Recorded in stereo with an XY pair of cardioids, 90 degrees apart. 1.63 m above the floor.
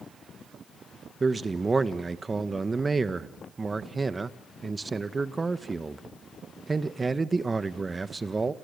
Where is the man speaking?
30° right, 1.4 m.